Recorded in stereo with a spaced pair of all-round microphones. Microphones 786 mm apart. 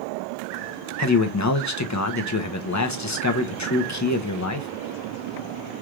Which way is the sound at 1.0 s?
25° left (ahead or behind).